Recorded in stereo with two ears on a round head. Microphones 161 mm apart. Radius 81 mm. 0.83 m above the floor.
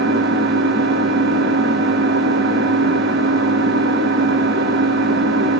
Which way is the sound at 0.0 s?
60° right (ahead or behind).